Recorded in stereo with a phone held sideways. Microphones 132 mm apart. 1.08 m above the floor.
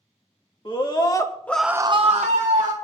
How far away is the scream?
About 1.9 m.